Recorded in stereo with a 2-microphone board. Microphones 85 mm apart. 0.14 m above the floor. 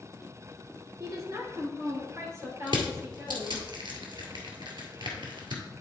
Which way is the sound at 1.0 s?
40° right (ahead or behind).